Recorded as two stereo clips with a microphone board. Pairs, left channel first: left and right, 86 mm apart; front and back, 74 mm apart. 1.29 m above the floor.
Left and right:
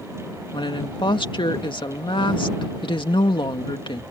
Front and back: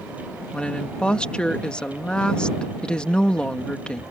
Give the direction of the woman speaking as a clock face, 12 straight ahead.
9 o'clock.